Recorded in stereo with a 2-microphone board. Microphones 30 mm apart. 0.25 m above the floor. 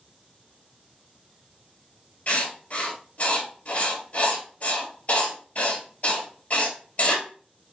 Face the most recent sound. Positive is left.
turn(degrees=50)  # may be behind; listen again after turning